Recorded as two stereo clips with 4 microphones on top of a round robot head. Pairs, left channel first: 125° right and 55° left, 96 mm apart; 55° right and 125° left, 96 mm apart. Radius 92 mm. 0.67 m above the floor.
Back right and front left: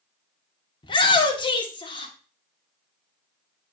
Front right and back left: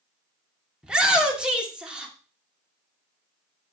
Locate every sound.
0.8 s a shout: 155° right, 2 m